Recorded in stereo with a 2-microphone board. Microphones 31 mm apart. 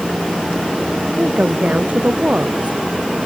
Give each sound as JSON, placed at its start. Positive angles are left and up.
{"t": 1.2, "sound": "a woman speaking", "side_deg": -55}